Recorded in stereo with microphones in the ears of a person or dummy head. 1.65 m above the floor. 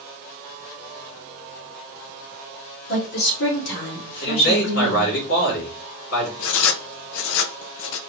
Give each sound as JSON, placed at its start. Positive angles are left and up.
{"t": 2.9, "sound": "a woman speaking", "side_deg": 60, "distance_m": 2.5}
{"t": 4.2, "sound": "a man speaking", "side_deg": 75, "distance_m": 2.5}
{"t": 6.4, "sound": "writing", "side_deg": 75, "distance_m": 0.6}